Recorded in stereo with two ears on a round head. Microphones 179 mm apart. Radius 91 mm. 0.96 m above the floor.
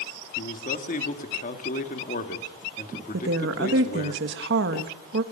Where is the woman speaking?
65° right (ahead or behind), 1.4 m.